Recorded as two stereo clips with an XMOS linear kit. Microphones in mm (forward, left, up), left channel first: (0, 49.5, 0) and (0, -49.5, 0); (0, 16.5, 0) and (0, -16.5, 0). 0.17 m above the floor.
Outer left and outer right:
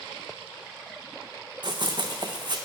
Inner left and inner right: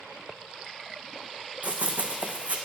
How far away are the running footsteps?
About 0.7 m.